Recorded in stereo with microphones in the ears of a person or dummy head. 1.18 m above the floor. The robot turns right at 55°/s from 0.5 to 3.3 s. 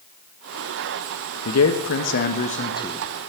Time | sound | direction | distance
1.4 | a man speaking | 80° left | 1.3 m